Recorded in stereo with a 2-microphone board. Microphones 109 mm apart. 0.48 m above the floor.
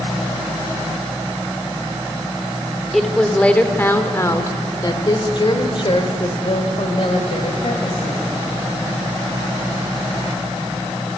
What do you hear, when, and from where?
2.9 s a woman speaking: centre (ahead or behind), 1.7 m; by 8.2 s 70° left (ahead or behind), 3.5 m